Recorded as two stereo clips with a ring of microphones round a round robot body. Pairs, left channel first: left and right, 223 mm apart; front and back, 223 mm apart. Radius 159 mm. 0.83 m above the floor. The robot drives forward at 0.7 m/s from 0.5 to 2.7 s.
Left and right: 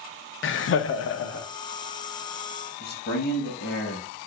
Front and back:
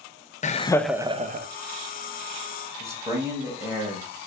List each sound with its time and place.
0.4 s laughter: 60° left, 0.6 m; by 1.5 s 135° left, 0.7 m
2.8 s a man speaking: 105° left, 1.3 m